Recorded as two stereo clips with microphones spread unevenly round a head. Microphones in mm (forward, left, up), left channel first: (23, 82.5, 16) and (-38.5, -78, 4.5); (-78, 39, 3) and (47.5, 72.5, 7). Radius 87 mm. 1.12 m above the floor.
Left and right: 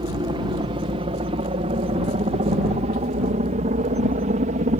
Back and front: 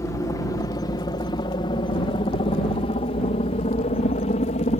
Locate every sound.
0.0 s a helicopter: 125° right; by 4.8 s 145° right